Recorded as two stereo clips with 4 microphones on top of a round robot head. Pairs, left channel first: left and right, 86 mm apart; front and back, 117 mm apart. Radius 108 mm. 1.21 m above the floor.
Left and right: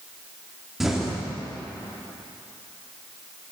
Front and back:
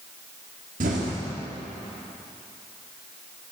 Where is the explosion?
175° right, 1.0 m.